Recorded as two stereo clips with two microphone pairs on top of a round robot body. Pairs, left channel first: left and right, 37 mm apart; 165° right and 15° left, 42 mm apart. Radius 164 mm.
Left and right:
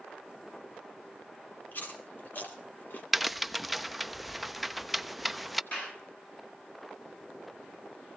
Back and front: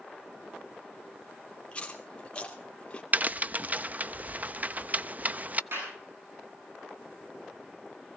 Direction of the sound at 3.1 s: 5° left.